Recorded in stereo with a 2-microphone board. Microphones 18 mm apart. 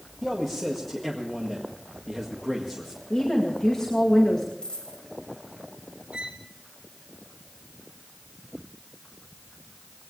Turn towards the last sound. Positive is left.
turn(degrees=-65)  # may be behind; listen again after turning